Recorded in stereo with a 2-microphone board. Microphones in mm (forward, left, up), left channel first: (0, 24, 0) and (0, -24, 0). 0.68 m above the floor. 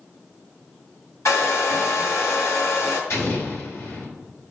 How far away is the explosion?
About 3 m.